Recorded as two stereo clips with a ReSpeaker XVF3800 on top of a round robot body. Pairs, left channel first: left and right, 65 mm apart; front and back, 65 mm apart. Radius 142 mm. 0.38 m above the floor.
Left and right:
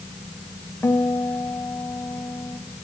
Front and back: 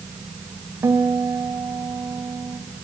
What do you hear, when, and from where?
0.8 s a guitar: 140° left, 3 m